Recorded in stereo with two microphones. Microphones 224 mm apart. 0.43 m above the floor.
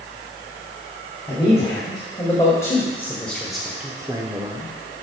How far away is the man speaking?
About 2.5 m.